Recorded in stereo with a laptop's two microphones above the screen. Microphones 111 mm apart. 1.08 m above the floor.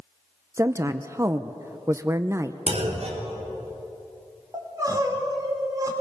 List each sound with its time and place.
0.6 s a woman speaking: 25° right (ahead or behind), 0.7 m
2.7 s a clunk: 75° right (ahead or behind), 3.5 m
4.5 s crying: 35° right (ahead or behind), 3.5 m